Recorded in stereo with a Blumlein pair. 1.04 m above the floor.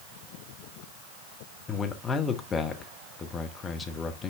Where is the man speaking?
15° left, 1.2 m.